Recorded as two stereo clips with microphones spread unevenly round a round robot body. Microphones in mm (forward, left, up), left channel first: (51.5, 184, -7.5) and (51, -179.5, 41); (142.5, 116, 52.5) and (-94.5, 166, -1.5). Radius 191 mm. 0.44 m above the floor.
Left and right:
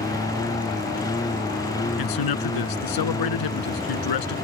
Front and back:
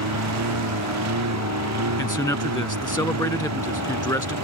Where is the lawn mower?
170° left.